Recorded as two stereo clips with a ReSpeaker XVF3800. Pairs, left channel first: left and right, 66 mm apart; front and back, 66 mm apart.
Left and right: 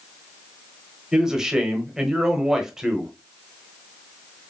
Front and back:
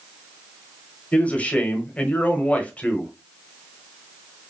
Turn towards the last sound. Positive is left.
turn(degrees=-25)